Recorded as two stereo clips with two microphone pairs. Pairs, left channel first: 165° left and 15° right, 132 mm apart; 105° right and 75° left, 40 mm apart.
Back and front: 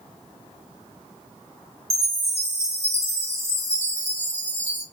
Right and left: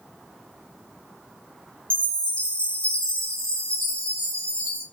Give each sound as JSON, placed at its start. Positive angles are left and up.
{"t": 1.9, "sound": "a chime", "azimuth_deg": -40, "distance_m": 2.5}